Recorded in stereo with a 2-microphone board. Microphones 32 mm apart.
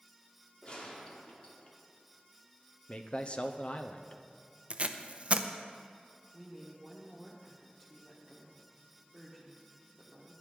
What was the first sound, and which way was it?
A gunshot, 30° left (ahead or behind).